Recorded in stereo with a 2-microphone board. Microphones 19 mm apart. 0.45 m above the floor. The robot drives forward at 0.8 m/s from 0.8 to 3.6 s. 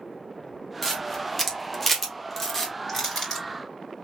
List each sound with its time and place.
0.8 s a camera shutter: 10° left (ahead or behind), 1.7 m; by 2.7 s 15° left (ahead or behind), 1.4 m
2.9 s crushing: 10° left (ahead or behind), 3 m